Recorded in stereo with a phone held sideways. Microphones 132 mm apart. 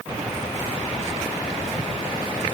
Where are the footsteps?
No footsteps in this recording.